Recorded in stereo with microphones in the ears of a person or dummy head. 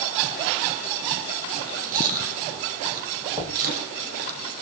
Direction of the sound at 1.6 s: 45° right (ahead or behind).